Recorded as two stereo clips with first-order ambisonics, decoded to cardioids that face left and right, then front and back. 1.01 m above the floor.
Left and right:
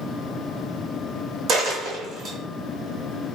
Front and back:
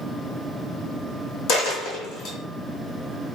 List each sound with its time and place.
1.5 s a dropped coin: 35° right, 1.7 m